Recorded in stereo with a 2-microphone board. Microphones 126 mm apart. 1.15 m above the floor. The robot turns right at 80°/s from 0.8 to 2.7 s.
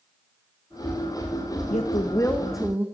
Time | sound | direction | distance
1.7 | a woman speaking | 115° left | 0.9 m